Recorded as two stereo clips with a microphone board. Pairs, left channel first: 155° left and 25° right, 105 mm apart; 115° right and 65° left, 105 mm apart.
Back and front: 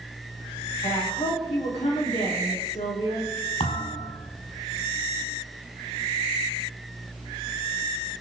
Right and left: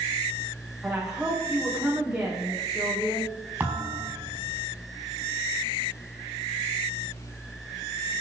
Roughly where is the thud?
Behind left.